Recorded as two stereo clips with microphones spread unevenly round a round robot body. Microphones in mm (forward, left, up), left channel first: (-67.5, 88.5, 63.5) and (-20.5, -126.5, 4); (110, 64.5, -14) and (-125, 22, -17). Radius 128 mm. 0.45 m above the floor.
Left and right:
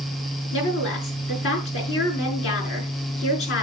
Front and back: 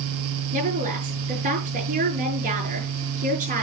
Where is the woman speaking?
135° left, 6.5 m.